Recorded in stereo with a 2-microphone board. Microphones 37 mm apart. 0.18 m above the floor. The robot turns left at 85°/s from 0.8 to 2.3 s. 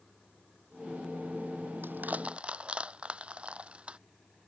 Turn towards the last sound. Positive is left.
turn(degrees=-30)  # may be behind; listen again after turning